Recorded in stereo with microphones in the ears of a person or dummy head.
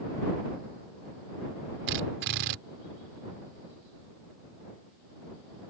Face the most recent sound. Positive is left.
turn(degrees=-55)  # may be behind; listen again after turning